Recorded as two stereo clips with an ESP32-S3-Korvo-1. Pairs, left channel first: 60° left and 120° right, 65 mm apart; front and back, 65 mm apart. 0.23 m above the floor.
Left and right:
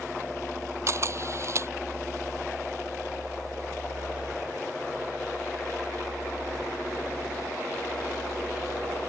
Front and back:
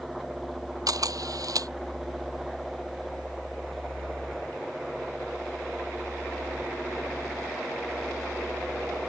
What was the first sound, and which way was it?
A camera shutter, 160° right.